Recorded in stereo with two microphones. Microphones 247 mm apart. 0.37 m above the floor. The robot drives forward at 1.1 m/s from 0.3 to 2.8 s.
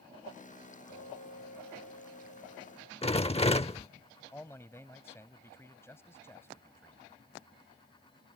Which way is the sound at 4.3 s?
10° left (ahead or behind).